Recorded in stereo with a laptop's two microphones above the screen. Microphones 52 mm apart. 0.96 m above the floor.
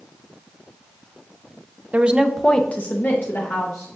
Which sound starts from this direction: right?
A woman speaking, at 1.9 s.